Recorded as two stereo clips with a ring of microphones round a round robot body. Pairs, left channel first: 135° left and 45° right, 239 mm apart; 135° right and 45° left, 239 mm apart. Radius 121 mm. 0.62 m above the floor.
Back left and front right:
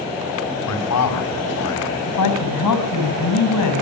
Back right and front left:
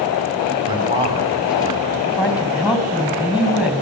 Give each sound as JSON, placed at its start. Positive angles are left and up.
{"t": 0.7, "sound": "a man speaking", "azimuth_deg": 115, "distance_m": 4.5}
{"t": 2.1, "sound": "a woman speaking", "azimuth_deg": 130, "distance_m": 4.5}